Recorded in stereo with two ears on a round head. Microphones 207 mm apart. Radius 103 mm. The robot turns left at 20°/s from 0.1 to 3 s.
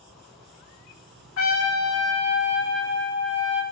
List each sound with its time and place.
1.4 s a trumpet: 105° left, 1.5 m; by 3.6 s 75° left, 1.5 m